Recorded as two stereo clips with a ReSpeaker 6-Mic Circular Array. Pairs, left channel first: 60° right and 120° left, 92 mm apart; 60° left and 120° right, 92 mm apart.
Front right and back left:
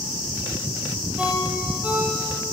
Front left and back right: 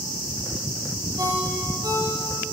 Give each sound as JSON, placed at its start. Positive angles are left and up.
{"t": 1.2, "sound": "a ringtone", "azimuth_deg": -165, "distance_m": 7.0}